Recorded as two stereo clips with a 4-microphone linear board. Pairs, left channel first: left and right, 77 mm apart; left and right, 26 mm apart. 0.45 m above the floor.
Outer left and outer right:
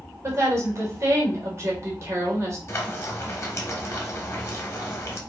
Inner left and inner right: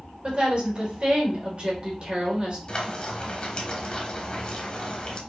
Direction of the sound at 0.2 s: 40° right (ahead or behind).